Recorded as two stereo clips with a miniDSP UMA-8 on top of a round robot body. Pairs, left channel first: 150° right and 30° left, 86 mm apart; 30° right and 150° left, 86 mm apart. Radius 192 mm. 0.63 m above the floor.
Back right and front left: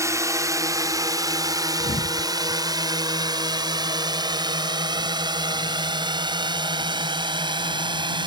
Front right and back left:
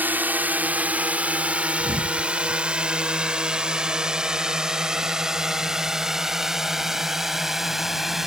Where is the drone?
80° left; by 8.3 s 65° left.